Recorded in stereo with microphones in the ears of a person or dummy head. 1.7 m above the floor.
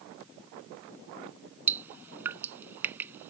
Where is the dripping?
10° right (ahead or behind).